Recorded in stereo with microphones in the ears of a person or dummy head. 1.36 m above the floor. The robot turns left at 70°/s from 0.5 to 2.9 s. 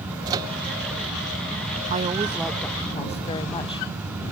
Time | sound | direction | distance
0.3 | a microwave | 25° right (ahead or behind) | ?
1.9 | a woman speaking | 140° right | ?